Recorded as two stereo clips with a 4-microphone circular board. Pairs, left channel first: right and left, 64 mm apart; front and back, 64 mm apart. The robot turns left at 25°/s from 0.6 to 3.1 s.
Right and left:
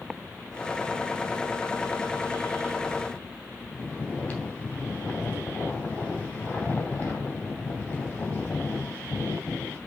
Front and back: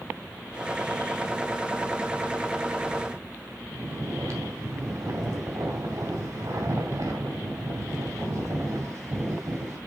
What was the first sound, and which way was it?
Snoring, 155° right.